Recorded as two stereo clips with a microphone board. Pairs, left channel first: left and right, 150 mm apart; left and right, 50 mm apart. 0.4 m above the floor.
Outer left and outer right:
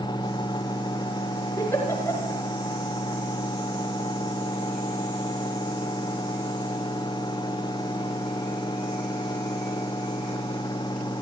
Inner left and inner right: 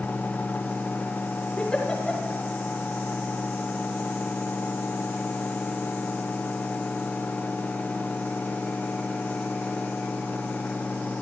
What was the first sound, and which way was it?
A giggle, 20° left (ahead or behind).